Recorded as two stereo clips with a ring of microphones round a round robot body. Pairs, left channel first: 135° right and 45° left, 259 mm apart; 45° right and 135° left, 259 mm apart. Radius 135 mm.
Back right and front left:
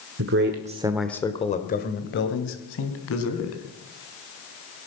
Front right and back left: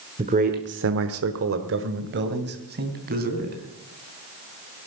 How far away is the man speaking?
About 1.4 m.